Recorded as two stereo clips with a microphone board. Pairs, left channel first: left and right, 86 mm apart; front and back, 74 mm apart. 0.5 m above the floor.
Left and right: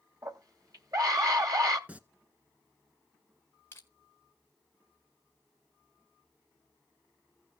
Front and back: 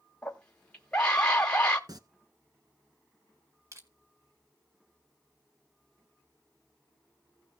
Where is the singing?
160° right, 0.9 m.